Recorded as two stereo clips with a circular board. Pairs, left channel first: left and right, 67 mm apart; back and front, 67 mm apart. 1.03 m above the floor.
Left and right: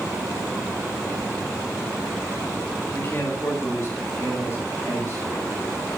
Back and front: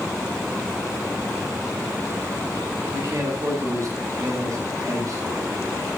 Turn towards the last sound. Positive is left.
turn(degrees=40)